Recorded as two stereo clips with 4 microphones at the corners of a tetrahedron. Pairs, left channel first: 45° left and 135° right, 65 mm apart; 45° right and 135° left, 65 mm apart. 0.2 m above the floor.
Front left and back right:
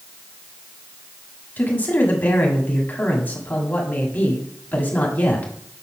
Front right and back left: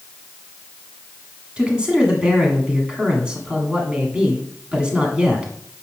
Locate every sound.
1.6 s a man speaking: 75° left, 1.7 m